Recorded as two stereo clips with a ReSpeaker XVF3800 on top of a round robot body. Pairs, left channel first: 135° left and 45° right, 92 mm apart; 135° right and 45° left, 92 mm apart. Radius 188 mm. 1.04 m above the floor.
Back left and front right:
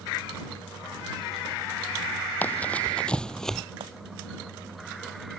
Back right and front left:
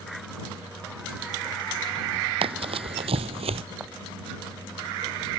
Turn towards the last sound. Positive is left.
turn(degrees=-35)